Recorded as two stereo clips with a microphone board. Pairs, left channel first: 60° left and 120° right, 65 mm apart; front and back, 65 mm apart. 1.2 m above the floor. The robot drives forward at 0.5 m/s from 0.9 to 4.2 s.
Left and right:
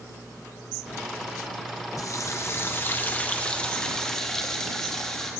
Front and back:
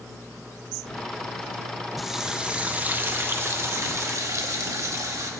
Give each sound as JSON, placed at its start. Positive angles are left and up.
{"t": 2.0, "sound": "a running tap", "azimuth_deg": 90, "distance_m": 0.9}